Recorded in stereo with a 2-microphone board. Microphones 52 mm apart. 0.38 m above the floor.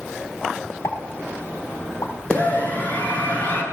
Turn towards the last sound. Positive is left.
turn(degrees=35)  # may be behind; listen again after turning